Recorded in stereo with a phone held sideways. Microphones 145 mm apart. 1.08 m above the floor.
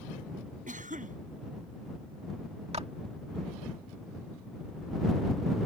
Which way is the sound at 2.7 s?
45° right (ahead or behind).